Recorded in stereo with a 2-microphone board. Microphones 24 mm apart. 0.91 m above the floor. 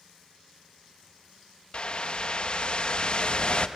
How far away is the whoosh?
About 0.8 m.